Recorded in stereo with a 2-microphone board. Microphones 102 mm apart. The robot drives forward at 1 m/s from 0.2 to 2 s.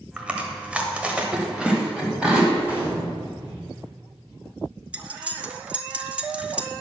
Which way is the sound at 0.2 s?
10° right (ahead or behind).